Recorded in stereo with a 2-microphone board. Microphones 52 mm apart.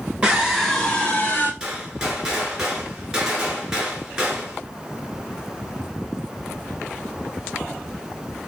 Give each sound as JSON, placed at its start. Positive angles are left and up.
{"t": 0.2, "sound": "a scream", "side_deg": -15, "distance_m": 1.3}
{"t": 1.6, "sound": "a gunshot", "side_deg": -10, "distance_m": 1.4}